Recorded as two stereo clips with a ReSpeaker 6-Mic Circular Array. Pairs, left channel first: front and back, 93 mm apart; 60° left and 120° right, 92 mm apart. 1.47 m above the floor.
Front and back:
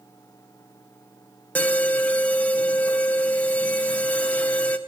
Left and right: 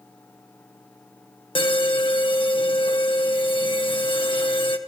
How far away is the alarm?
About 1.7 m.